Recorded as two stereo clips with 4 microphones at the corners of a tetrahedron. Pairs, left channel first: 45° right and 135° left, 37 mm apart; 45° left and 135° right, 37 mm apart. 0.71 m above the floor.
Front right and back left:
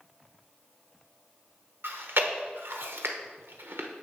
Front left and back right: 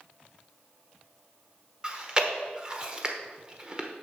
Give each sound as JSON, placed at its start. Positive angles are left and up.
{"t": 1.8, "sound": "chewing", "azimuth_deg": 155, "distance_m": 0.9}